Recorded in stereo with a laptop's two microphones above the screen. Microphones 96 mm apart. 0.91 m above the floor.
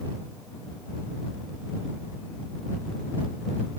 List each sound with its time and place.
Only background noise.